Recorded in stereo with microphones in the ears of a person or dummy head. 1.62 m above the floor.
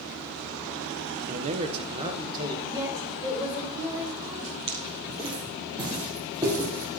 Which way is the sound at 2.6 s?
20° right (ahead or behind).